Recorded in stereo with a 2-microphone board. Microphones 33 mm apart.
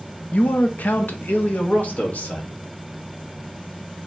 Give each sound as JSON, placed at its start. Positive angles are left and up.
{"t": 0.3, "sound": "a man speaking", "side_deg": 50, "distance_m": 0.6}